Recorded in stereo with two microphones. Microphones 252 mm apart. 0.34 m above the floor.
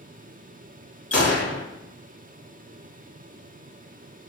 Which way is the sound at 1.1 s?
65° left (ahead or behind).